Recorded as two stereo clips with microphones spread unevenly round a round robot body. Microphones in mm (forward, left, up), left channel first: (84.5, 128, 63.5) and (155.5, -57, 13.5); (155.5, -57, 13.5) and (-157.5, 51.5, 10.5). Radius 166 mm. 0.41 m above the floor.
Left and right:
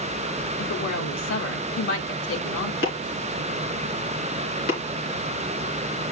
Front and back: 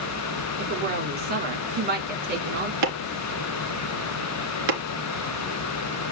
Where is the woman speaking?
100° left, 4.5 m.